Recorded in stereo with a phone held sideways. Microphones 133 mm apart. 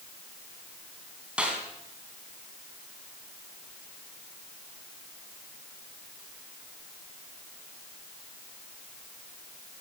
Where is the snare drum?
10° right (ahead or behind), 3.5 m.